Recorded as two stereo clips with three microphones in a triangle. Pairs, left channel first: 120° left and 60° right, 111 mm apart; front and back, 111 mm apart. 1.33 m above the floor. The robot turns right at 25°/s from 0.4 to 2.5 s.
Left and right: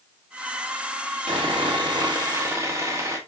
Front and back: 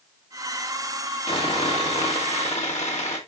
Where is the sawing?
30° right, 2 m; by 3.2 s straight ahead, 2 m.